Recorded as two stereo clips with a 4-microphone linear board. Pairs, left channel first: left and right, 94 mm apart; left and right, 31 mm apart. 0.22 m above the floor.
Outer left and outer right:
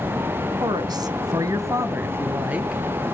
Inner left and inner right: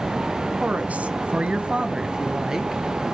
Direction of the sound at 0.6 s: 50° right (ahead or behind).